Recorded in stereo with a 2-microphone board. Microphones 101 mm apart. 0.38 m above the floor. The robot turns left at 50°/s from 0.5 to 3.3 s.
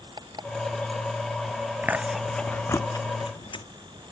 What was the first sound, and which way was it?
An alarm clock, 45° right (ahead or behind).